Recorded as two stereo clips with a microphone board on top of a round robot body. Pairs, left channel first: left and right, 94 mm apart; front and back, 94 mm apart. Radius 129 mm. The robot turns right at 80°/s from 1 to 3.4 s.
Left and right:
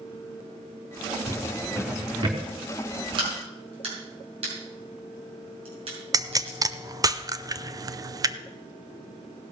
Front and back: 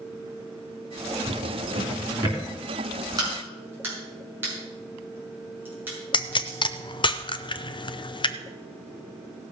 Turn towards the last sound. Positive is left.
turn(degrees=-35)